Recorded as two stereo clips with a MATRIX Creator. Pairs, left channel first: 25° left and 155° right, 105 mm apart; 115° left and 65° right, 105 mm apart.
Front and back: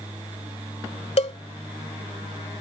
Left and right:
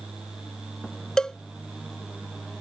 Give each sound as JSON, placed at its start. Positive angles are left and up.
{"t": 1.2, "sound": "a cowbell", "azimuth_deg": 30}